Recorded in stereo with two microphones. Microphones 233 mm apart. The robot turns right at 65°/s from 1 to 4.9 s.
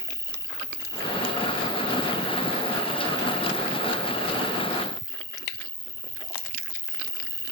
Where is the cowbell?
I don't hear a cowbell.